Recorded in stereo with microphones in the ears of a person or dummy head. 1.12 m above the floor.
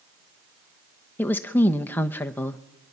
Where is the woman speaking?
10° left (ahead or behind), 1.0 m.